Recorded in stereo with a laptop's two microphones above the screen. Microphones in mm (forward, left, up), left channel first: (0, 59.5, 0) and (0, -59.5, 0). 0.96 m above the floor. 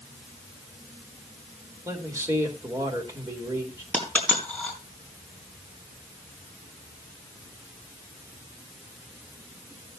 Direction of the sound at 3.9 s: 10° left (ahead or behind).